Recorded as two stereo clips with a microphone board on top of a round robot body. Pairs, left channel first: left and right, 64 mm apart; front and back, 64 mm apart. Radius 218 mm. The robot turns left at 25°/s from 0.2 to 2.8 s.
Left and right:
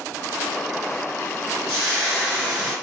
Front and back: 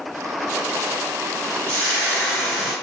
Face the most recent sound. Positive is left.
turn(degrees=-160)